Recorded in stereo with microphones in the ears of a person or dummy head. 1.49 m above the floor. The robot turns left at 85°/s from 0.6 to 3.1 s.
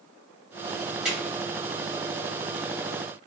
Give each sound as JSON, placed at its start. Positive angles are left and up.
{"t": 1.1, "sound": "a drawer", "side_deg": -5, "distance_m": 1.6}